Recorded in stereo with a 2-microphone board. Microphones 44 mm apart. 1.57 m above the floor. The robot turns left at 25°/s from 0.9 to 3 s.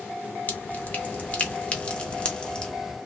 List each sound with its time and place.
0.5 s dripping: 35° left (ahead or behind), 1.0 m; by 2.7 s 15° left (ahead or behind), 1.0 m